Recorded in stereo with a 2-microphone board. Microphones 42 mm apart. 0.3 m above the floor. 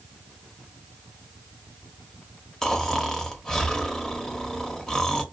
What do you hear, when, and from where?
2.6 s snoring: 10° left (ahead or behind), 0.6 m